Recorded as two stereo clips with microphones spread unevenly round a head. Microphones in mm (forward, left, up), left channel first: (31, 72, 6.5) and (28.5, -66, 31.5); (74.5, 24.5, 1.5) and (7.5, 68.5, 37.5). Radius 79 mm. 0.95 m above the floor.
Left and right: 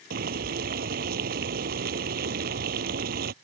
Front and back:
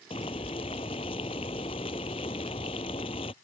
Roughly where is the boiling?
Right.